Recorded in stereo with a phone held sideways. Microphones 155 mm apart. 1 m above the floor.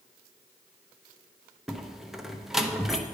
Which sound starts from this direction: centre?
A door slam, at 1.7 s.